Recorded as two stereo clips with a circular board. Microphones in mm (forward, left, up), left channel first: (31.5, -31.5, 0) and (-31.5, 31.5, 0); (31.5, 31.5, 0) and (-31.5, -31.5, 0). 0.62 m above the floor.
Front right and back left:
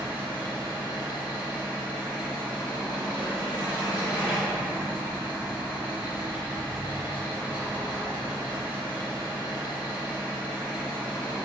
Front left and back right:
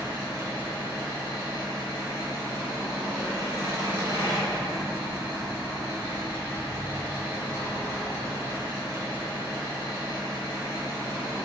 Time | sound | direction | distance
0.0 | an engine running | 170° right | 0.8 m